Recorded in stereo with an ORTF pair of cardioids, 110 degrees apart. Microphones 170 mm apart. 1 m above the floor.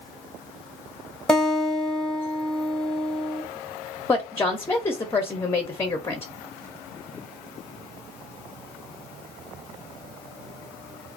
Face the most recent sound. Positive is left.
turn(degrees=15)